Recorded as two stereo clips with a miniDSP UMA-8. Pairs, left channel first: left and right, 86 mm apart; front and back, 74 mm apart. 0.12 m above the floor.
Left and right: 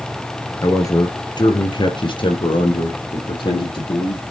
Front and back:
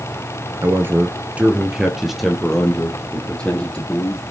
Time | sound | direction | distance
0.6 | a man speaking | 135° left | 1.6 m